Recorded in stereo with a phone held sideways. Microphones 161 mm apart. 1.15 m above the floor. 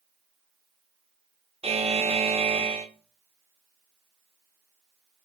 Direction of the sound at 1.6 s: 40° right (ahead or behind).